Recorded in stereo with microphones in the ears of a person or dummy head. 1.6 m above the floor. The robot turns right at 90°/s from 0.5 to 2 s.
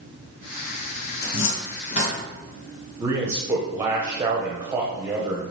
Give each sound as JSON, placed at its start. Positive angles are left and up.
{"t": 1.2, "sound": "a cupboard door", "side_deg": 70, "distance_m": 1.1}
{"t": 3.0, "sound": "a man speaking", "side_deg": -15, "distance_m": 0.6}